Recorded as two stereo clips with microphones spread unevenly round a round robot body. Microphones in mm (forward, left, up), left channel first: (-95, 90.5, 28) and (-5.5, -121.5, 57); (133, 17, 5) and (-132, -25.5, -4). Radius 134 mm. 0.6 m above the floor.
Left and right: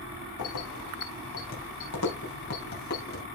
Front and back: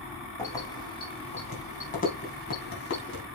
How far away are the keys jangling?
About 3.5 m.